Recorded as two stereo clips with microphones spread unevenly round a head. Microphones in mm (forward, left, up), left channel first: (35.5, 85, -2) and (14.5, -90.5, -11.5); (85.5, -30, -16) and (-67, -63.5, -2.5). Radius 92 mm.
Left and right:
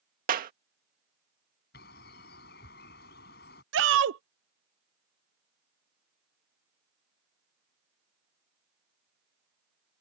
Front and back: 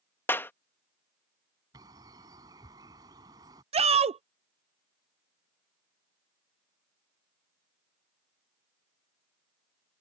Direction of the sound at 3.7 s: 120° right.